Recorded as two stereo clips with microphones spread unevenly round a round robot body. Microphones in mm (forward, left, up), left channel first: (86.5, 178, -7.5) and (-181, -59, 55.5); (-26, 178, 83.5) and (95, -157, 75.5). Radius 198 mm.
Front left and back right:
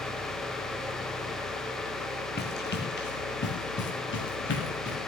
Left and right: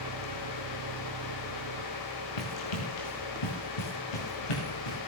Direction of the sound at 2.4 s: 105° left.